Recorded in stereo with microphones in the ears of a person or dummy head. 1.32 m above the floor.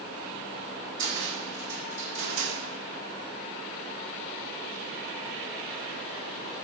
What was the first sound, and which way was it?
A cupboard door, 40° right (ahead or behind).